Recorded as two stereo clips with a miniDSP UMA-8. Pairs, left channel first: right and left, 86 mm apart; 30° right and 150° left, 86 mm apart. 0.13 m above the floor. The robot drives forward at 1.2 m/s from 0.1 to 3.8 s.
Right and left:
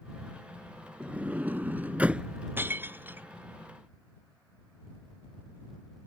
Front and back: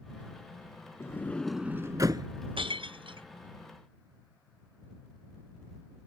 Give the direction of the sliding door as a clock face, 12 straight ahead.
11 o'clock.